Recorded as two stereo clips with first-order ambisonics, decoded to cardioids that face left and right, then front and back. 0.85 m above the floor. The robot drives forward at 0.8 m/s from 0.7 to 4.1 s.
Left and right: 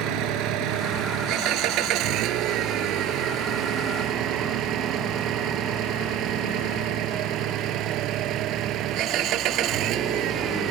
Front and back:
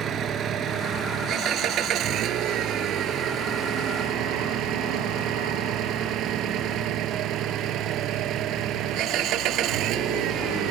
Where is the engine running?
125° right; by 10.7 s 135° right.